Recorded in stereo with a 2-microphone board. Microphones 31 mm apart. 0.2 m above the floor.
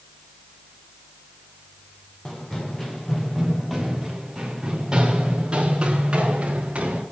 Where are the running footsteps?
25° left (ahead or behind), 2 m; by 7.0 s 40° right (ahead or behind), 3.5 m.